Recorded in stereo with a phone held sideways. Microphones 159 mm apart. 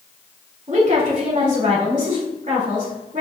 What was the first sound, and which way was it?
A woman speaking, 50° right (ahead or behind).